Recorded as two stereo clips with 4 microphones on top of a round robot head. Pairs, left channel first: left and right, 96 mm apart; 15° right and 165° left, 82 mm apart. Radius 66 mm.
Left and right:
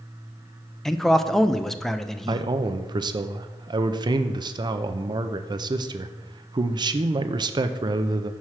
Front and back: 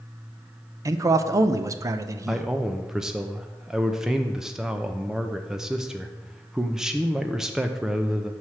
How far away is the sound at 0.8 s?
About 0.5 m.